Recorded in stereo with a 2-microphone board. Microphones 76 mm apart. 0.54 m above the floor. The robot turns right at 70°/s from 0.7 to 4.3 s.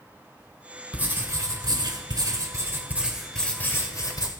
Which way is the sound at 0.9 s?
160° right.